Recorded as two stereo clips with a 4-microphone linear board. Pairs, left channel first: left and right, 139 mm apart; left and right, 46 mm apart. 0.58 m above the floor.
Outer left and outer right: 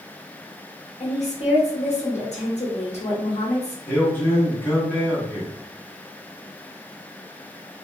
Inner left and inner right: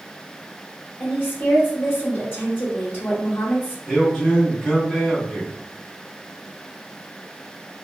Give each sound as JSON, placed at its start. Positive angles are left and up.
{"t": 1.0, "sound": "a woman speaking", "side_deg": 50, "distance_m": 1.0}
{"t": 3.9, "sound": "a man speaking", "side_deg": 15, "distance_m": 1.1}